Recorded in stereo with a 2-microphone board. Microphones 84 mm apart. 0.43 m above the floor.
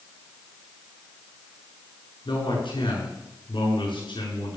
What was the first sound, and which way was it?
A man speaking, 80° left.